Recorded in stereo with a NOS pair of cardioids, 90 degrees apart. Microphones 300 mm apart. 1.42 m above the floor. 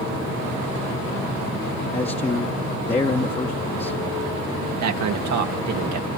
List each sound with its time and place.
1.9 s a man speaking: 20° left, 1.1 m
4.8 s a man speaking: 65° right, 1.4 m